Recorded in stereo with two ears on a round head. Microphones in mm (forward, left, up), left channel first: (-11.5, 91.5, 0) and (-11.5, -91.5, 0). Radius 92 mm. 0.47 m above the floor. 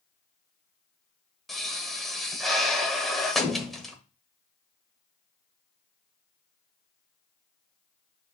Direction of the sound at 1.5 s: Centre (ahead or behind).